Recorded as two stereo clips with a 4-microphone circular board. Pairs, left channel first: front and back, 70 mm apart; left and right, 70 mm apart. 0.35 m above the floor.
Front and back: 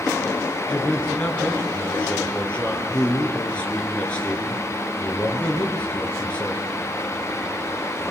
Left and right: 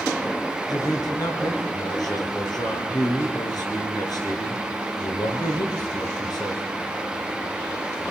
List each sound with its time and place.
0.7 s a man speaking: 70° left, 5.5 m